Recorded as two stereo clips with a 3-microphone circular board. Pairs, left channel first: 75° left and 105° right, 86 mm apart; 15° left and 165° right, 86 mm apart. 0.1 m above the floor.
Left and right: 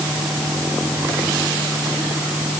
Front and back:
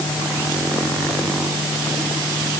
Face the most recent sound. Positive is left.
No sound to turn to.